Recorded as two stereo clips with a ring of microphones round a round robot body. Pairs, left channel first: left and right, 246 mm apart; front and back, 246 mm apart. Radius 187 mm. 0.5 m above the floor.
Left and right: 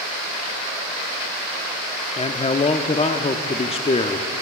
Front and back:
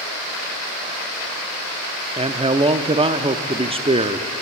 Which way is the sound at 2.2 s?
130° left.